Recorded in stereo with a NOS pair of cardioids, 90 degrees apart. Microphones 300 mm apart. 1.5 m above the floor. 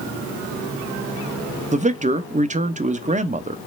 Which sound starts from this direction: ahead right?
A man speaking, at 1.7 s.